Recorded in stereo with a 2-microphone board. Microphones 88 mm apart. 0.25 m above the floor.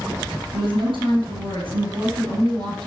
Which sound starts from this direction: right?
A woman speaking, at 0.5 s.